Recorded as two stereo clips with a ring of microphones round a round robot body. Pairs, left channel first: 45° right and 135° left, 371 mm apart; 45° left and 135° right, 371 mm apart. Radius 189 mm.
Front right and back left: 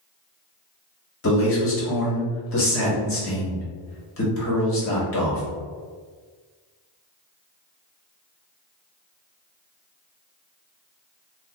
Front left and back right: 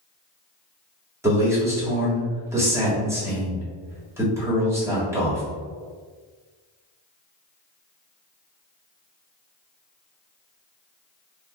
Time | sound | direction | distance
1.2 | a man speaking | 55° right | 1.5 m